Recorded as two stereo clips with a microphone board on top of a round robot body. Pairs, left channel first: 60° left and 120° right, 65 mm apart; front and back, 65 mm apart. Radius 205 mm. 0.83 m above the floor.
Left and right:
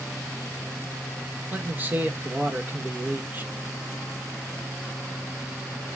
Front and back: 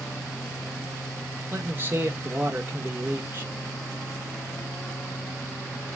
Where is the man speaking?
155° right, 1.1 m.